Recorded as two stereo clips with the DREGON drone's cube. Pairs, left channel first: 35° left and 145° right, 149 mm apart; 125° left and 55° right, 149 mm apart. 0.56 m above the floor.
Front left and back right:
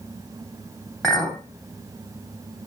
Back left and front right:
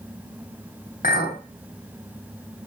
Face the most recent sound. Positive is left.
turn(degrees=120)